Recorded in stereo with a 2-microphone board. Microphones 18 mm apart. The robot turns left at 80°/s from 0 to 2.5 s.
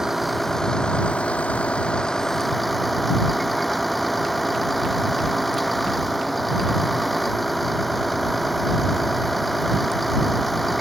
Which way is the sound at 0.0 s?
150° right.